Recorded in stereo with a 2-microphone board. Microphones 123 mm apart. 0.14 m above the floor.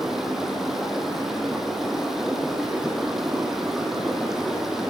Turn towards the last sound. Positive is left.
turn(degrees=-5)  # may be behind; listen again after turning